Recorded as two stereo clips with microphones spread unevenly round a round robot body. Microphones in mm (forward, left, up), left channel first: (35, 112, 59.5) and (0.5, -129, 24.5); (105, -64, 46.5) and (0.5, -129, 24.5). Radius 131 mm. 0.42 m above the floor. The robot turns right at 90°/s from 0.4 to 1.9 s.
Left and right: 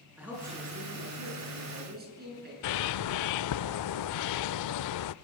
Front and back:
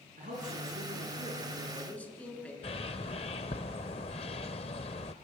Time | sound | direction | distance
0.2 | a man speaking | straight behind | 7 m
2.6 | a bird | 90° left | 0.5 m